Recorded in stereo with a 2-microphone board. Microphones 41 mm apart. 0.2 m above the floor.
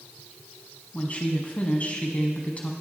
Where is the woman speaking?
35° left (ahead or behind), 1.4 m.